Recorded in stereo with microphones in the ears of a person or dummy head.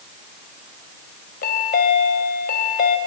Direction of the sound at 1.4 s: 45° left (ahead or behind).